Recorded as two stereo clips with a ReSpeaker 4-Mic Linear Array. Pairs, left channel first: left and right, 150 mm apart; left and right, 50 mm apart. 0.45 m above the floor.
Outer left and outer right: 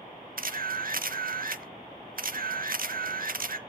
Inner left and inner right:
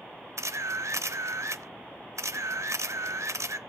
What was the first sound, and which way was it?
A camera shutter, 70° right (ahead or behind).